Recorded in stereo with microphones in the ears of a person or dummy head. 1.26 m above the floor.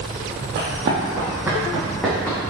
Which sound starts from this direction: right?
Running footsteps, at 0.6 s.